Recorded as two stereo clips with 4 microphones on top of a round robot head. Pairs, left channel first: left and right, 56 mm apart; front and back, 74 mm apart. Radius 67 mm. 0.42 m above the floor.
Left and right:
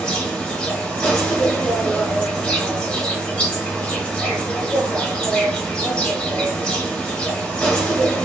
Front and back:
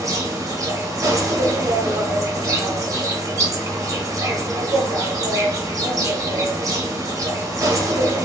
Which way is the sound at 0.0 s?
160° left.